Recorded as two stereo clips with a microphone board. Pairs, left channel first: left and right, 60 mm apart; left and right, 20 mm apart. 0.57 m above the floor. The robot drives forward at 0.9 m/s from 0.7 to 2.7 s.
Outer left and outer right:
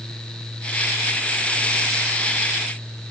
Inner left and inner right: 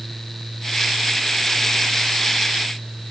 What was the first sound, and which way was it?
Only background noise.